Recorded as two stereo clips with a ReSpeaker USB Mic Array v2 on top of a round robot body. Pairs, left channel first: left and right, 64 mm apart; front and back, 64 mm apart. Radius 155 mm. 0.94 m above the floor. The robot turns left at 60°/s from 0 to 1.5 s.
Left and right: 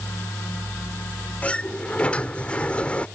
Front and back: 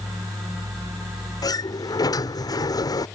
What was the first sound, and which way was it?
A sliding door, 25° left.